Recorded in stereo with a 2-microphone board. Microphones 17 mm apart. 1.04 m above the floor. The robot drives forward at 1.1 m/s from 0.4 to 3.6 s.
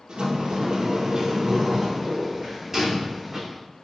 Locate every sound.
0.1 s a sliding door: 60° right (ahead or behind), 1.5 m; by 3.4 s 20° right (ahead or behind), 3.5 m